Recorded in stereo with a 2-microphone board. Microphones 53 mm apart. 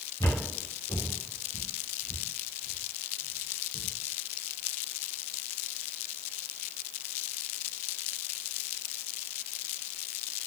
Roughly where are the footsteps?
Left.